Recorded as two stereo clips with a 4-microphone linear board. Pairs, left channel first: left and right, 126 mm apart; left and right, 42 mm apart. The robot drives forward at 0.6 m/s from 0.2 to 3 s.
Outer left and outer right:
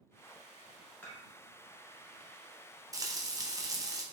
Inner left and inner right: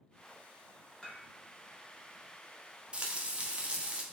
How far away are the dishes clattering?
About 1.7 m.